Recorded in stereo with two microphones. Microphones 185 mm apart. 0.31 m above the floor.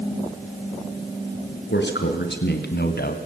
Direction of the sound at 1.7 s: 75° left (ahead or behind).